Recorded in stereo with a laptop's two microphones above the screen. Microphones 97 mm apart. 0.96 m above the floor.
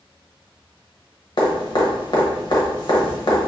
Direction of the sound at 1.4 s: 50° left (ahead or behind).